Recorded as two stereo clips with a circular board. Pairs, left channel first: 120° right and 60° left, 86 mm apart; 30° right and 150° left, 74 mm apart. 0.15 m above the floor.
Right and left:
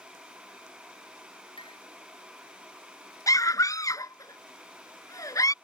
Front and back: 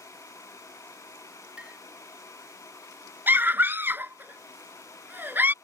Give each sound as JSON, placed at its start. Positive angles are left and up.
{"t": 1.6, "sound": "a clink", "azimuth_deg": -135}
{"t": 3.3, "sound": "a scream", "azimuth_deg": -155}